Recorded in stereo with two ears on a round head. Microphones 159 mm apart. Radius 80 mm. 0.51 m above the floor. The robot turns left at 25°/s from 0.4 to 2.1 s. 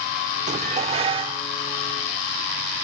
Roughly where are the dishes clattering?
Right.